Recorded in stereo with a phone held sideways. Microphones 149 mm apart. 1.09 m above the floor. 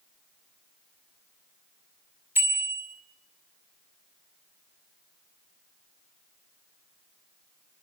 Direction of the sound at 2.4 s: 15° right (ahead or behind).